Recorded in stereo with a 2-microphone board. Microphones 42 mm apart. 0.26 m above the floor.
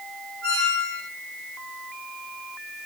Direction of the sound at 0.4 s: 25° left (ahead or behind).